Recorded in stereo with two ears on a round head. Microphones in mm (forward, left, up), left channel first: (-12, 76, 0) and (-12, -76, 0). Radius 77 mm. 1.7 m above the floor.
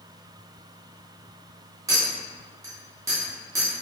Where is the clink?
20° right (ahead or behind), 1.6 m.